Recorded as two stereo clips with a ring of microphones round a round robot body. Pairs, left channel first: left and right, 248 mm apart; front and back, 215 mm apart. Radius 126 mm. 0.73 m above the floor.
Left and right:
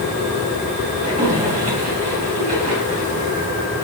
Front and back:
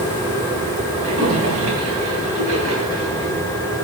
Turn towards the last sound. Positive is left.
turn(degrees=-150)